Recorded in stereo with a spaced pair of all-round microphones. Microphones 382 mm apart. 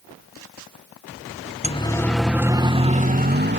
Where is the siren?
15° left (ahead or behind); by 3.6 s 25° right (ahead or behind).